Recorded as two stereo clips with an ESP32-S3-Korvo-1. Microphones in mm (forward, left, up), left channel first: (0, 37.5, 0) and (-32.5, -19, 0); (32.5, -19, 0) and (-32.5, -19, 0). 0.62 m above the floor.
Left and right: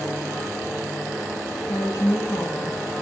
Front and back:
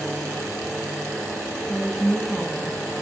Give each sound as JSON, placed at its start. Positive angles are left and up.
{"t": 1.7, "sound": "a woman speaking", "azimuth_deg": 90, "distance_m": 5.5}